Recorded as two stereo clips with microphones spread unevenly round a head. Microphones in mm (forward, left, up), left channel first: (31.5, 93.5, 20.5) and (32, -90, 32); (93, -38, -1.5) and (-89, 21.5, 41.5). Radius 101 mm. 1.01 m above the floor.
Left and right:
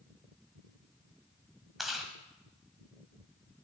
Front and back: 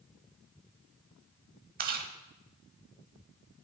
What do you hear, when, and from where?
1.8 s chewing: 175° right, 1.3 m